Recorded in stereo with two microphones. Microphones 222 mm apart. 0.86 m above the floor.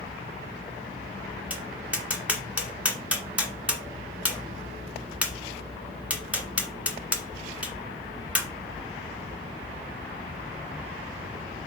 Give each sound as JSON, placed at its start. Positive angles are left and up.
{"t": 1.5, "sound": "tapping", "side_deg": -5, "distance_m": 1.6}